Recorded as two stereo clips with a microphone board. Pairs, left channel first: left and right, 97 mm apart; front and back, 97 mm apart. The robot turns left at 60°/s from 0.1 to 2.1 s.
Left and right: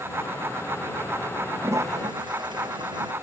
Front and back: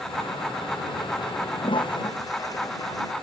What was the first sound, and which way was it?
A toilet flushing, 20° right.